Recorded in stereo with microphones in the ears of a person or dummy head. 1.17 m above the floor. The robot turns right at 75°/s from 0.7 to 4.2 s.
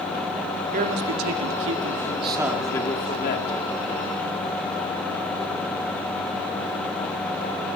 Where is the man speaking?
140° right, 2 m; by 3.5 s 70° left, 2 m.